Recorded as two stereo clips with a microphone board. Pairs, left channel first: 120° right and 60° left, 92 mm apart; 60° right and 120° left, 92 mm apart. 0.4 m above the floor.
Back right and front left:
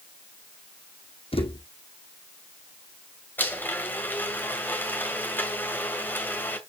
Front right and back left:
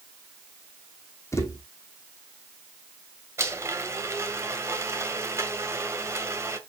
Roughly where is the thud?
Behind right.